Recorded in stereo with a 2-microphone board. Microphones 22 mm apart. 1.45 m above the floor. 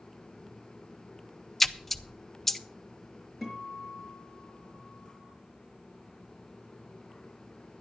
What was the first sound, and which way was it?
A splash, 10° left (ahead or behind).